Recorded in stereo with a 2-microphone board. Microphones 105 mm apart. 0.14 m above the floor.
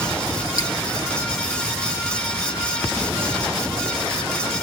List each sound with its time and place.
0.6 s dripping: 40° left (ahead or behind), 2.5 m